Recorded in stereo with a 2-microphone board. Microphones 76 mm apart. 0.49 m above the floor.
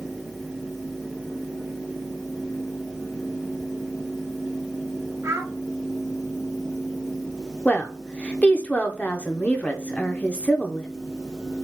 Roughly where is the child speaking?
Right.